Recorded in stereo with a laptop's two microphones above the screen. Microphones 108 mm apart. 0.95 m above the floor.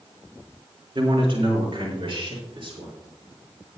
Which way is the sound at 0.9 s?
55° right (ahead or behind).